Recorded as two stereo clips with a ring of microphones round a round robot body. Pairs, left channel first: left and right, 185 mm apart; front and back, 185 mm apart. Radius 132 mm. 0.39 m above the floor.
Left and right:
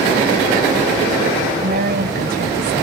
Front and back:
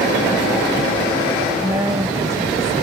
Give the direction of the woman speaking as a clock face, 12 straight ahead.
4 o'clock.